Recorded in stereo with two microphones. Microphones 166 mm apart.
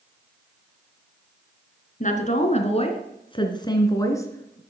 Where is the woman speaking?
45° left (ahead or behind), 2.5 m; by 4.6 s 15° left (ahead or behind), 3 m.